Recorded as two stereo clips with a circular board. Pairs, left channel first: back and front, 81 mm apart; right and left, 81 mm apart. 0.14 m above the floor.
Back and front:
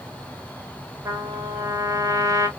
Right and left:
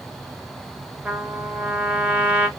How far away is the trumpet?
About 1.0 m.